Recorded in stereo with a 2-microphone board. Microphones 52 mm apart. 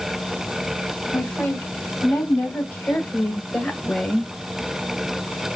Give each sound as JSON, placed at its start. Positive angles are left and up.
{"t": 1.1, "sound": "a woman speaking", "side_deg": 60, "distance_m": 3.5}